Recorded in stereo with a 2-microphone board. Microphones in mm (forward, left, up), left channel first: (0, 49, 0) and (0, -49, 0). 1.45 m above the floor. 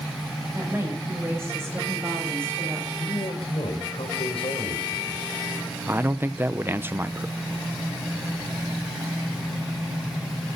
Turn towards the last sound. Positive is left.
turn(degrees=-25)  # may be behind; listen again after turning